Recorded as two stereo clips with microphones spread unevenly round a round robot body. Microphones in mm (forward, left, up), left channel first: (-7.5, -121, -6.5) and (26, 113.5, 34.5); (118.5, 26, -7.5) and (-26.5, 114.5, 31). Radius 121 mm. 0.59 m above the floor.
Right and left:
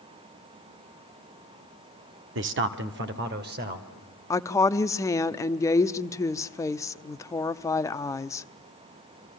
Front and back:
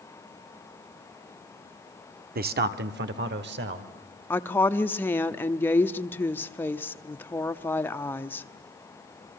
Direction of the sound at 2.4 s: 120° left.